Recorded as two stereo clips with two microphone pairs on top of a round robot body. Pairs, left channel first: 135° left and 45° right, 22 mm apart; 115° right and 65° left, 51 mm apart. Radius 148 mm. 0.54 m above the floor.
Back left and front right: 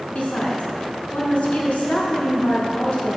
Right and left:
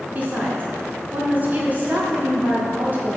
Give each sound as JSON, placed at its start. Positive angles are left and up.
{"t": 0.1, "sound": "a woman speaking", "azimuth_deg": 120, "distance_m": 1.8}